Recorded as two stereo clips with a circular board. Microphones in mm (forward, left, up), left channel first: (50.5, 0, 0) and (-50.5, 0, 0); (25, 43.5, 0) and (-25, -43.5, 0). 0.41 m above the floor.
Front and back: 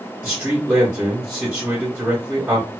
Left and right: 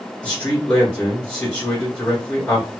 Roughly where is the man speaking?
Behind left.